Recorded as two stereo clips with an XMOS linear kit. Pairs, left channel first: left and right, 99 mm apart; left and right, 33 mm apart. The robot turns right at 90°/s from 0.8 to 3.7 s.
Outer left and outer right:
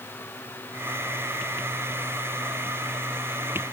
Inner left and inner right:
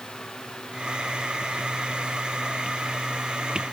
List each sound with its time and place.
Only background noise.